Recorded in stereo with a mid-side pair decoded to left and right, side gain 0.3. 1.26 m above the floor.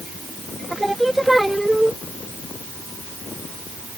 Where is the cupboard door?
No cupboard door in this recording.